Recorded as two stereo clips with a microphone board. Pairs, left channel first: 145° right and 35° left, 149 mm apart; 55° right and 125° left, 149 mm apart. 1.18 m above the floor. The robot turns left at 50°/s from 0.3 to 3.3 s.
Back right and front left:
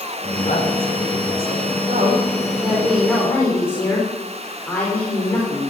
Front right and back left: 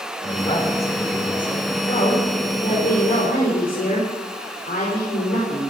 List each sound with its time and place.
0.2 s a man speaking: 100° right, 4.5 m; by 1.7 s 165° right, 4.5 m
1.9 s a woman speaking: straight ahead, 5 m; by 5.7 s 70° right, 5 m